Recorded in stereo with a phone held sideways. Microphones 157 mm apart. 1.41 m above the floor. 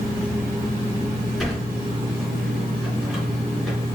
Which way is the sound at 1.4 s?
Centre (ahead or behind).